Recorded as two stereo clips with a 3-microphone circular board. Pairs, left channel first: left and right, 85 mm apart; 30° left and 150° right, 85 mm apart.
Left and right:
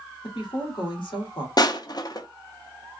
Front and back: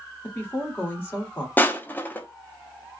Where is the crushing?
90° left, 0.5 m.